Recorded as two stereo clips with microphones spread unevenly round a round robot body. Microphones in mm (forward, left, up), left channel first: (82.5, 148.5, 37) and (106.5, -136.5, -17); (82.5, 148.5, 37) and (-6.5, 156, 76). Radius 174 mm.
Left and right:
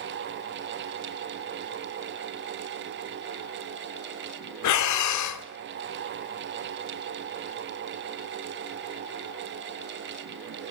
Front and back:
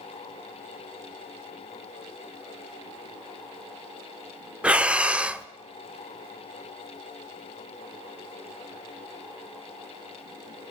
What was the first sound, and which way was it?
Breathing, 75° left.